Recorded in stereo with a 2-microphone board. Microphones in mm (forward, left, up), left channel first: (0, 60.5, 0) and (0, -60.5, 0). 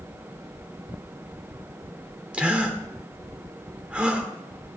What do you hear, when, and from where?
2.3 s a gasp: 10° right (ahead or behind), 1.5 m